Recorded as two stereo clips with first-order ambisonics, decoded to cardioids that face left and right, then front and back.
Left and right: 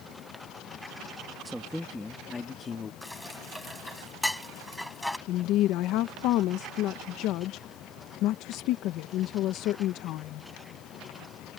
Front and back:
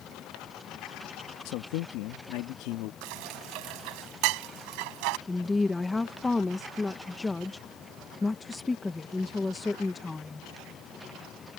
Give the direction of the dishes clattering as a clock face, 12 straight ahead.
6 o'clock.